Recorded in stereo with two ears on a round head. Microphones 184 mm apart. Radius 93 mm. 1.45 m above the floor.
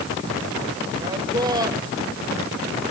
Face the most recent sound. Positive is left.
turn(degrees=-20)  # may be behind; listen again after turning